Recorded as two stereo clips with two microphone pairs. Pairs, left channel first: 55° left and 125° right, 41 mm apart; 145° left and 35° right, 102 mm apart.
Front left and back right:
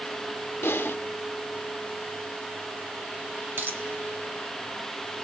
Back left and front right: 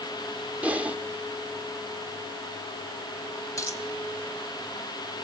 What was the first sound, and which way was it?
Typing on a keyboard, 40° left.